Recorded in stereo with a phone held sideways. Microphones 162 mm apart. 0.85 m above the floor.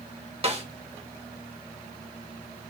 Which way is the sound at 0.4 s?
40° right (ahead or behind).